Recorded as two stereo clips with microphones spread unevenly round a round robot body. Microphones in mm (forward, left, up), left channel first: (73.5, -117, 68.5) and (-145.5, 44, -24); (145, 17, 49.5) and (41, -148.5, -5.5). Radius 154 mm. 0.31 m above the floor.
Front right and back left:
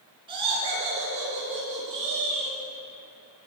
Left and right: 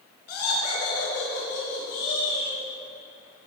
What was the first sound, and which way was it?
Laughter, 75° left.